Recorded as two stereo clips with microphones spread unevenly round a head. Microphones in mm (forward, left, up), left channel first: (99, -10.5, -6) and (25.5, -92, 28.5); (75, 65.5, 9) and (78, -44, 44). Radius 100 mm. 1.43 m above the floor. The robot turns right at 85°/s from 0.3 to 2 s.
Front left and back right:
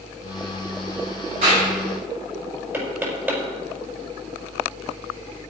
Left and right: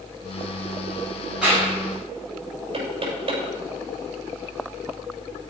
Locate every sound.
1.4 s a clap: 175° right, 7 m; by 1.7 s 150° right, 7 m
2.7 s knocking: 60° right, 6.5 m